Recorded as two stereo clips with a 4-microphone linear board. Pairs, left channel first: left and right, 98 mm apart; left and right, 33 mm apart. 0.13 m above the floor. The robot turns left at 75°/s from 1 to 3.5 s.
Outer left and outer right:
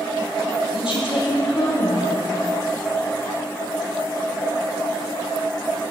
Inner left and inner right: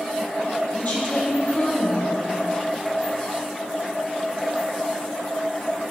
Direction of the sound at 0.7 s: 115° left.